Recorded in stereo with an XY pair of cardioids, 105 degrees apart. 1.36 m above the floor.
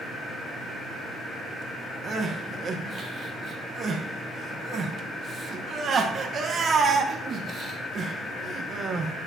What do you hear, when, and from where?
2.0 s crying: 45° right, 1.2 m